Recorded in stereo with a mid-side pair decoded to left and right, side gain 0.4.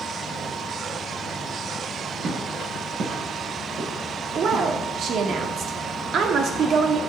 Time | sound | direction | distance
2.2 | footsteps | 50° right | 7 m
4.3 | a woman speaking | 60° right | 2.5 m